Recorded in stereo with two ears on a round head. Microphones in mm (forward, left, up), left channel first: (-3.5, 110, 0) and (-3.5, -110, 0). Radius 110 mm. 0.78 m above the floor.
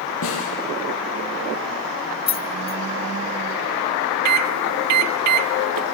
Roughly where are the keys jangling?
Left.